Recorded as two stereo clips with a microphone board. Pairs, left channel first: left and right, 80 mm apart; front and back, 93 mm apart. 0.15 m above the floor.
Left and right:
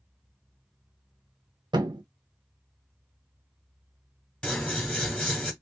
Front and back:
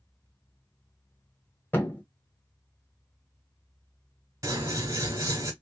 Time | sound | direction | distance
1.7 | a thud | 70° right | 0.6 m
4.4 | scissors | 165° left | 1.0 m